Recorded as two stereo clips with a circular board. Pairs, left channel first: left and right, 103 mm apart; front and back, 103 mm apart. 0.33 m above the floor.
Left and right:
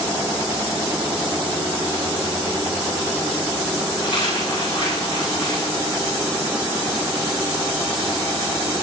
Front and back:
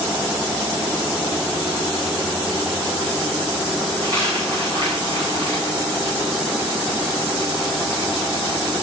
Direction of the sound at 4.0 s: 125° left.